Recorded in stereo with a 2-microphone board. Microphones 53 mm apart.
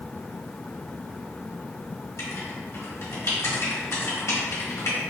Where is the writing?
65° left (ahead or behind), 1.7 m.